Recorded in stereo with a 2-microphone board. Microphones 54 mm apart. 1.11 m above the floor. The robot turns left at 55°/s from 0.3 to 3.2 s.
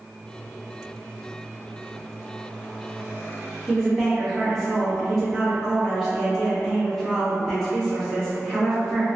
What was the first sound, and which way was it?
A woman speaking, 5° left (ahead or behind).